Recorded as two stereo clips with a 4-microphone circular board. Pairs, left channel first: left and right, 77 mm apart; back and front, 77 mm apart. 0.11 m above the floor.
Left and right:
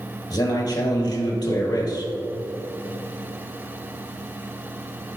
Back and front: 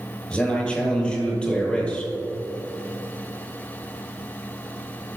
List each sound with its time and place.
0.3 s a man speaking: 105° left, 2.5 m